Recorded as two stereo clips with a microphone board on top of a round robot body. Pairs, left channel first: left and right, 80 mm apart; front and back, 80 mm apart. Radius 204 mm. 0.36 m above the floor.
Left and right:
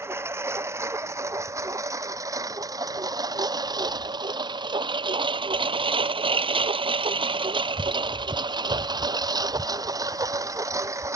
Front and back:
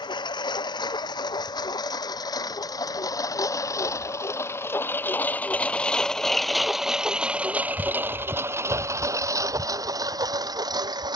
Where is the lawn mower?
30° right; by 11.2 s 145° right.